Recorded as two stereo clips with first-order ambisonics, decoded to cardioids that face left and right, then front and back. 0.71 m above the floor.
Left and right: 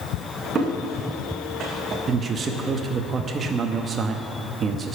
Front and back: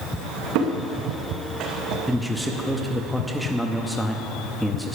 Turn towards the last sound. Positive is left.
turn(degrees=-100)